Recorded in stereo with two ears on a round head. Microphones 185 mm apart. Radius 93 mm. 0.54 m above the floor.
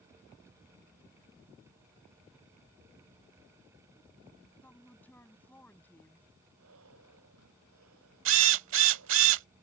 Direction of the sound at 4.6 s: 10° left (ahead or behind).